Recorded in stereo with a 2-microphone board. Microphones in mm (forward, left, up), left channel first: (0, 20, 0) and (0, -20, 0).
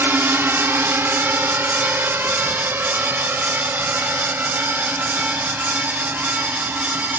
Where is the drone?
70° right (ahead or behind); by 7.2 s 55° right (ahead or behind).